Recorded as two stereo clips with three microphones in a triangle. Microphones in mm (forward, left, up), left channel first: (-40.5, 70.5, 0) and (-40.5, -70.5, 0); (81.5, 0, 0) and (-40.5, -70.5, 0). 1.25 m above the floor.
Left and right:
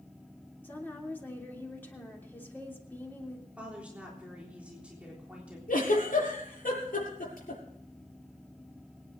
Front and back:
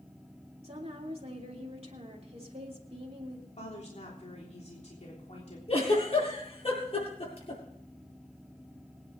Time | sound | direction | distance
0.6 | a woman speaking | 165° left | 3 m
3.6 | a woman speaking | 10° right | 3.5 m
5.7 | a giggle | 80° left | 7.5 m